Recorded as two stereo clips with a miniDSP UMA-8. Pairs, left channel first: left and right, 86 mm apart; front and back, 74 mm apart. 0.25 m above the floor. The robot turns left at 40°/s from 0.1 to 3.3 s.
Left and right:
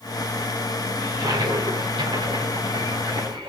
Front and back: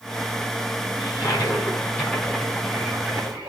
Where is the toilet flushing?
35° right, 9.5 m; by 3.5 s 125° right, 9.5 m.